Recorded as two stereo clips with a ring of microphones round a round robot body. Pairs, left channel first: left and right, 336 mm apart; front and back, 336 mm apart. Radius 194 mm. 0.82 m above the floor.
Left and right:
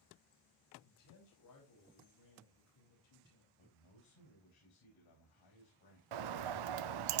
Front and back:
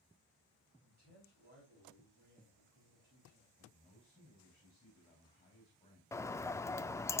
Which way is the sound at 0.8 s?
115° left.